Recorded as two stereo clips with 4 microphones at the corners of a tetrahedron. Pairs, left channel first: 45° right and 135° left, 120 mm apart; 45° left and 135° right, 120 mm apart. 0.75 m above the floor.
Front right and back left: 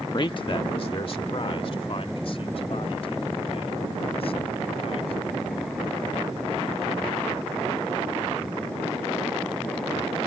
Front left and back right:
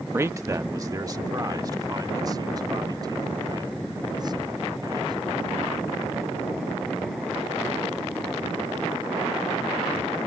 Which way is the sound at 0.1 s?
75° right.